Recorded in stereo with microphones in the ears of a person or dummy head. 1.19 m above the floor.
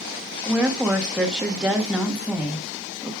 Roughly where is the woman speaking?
Centre.